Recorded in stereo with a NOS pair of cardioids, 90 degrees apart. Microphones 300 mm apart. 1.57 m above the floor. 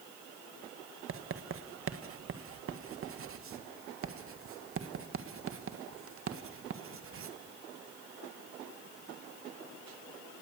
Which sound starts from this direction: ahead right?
Writing, at 1.1 s.